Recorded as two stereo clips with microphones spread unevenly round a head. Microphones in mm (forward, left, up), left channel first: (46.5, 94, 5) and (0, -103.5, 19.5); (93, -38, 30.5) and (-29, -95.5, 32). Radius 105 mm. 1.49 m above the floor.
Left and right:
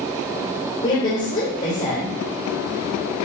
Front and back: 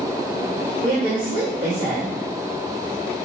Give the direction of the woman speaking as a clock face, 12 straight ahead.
8 o'clock.